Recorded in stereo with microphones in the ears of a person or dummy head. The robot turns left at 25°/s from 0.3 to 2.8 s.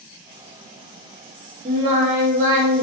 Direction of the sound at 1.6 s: 30° right (ahead or behind).